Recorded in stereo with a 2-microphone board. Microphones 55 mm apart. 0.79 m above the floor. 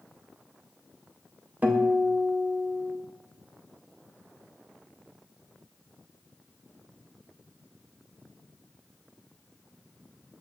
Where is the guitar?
30° right (ahead or behind), 0.6 m.